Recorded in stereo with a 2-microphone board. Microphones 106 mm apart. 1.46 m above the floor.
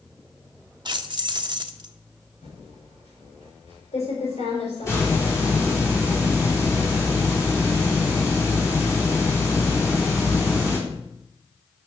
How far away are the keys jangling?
About 0.9 m.